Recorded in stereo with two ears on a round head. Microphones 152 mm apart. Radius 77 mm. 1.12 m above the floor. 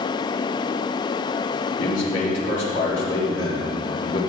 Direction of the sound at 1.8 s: 80° left.